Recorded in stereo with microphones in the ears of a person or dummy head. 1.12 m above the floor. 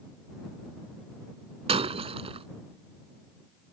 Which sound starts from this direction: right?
Breaking glass, at 1.7 s.